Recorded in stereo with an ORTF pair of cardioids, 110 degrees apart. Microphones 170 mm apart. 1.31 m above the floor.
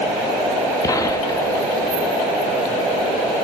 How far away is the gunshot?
About 3 m.